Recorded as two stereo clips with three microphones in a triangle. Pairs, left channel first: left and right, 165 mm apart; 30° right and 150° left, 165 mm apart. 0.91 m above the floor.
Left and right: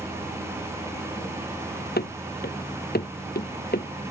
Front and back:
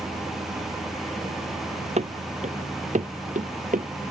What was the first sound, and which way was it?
Running footsteps, 105° left.